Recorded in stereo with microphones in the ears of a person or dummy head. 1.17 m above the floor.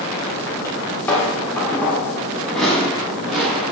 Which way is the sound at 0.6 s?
10° left (ahead or behind).